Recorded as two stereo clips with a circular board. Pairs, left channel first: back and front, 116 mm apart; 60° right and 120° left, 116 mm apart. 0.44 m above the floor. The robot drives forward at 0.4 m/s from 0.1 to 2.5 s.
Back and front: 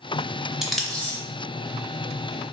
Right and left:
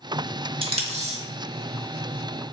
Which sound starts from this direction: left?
Tape being pulled, at 0.6 s.